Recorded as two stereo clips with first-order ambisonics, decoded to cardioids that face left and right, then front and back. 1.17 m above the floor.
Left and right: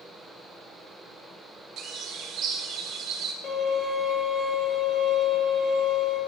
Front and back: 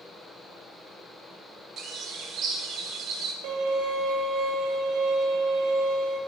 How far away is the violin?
About 1.2 m.